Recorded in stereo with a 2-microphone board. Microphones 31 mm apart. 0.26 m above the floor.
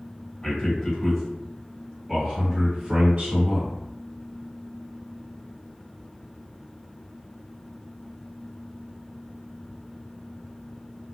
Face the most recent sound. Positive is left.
turn(degrees=-50)  # may be behind; listen again after turning